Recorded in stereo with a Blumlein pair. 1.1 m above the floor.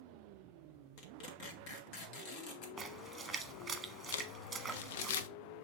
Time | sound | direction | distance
1.0 | tearing paper | 45° left | 2 m
2.8 | a splash | 15° right | 1.3 m
4.1 | crumpling | 55° left | 0.7 m